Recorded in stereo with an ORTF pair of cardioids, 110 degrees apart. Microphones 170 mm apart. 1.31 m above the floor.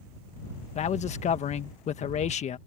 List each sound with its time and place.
0.8 s a man speaking: 45° left